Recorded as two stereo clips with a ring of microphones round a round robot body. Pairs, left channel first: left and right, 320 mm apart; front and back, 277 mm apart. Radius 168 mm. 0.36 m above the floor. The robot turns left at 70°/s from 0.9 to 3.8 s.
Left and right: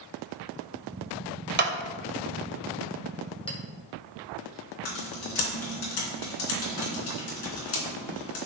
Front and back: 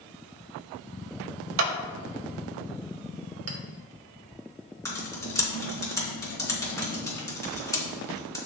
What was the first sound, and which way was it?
A clap, 145° right.